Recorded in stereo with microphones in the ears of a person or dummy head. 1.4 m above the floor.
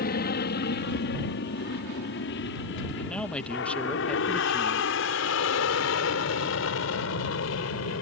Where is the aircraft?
45° left (ahead or behind); by 8.0 s 65° left (ahead or behind).